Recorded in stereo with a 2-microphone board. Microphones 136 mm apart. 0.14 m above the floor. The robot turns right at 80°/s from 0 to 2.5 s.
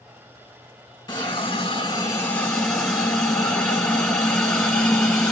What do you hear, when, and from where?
1.1 s a hiss: 55° left, 1.6 m; by 5.3 s 170° left, 1.6 m